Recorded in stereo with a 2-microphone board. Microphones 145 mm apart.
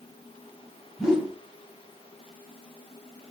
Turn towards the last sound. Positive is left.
turn(degrees=-5)  # may be behind; listen again after turning